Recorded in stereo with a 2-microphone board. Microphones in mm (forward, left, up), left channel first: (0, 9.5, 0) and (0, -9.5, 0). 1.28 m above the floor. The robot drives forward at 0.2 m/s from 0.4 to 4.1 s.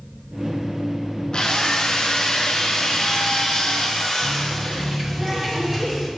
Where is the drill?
35° left (ahead or behind), 1.0 m; by 5.0 s 25° left (ahead or behind), 1.5 m.